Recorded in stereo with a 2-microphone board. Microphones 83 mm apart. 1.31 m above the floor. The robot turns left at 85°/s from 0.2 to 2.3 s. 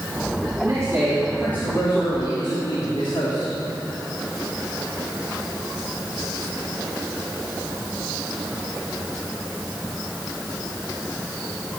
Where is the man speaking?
120° right, 3.5 m; by 3.5 s 95° left, 3.5 m.